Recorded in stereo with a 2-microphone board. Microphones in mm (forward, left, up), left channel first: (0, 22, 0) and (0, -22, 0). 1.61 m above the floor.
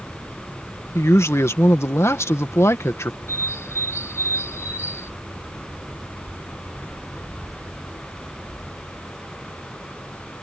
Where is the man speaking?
85° left.